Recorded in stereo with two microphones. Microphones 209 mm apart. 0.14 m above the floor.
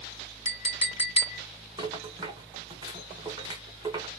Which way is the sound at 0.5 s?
30° left (ahead or behind).